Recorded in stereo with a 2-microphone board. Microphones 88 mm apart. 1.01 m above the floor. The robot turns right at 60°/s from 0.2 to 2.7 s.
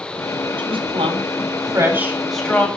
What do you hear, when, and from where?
0.6 s a woman speaking: 75° right (ahead or behind), 7 m; by 2.7 s 20° left (ahead or behind), 7 m